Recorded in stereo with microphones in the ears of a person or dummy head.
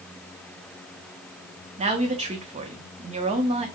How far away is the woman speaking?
About 0.7 m.